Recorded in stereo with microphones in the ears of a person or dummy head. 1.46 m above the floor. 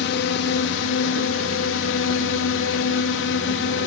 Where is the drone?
60° left (ahead or behind).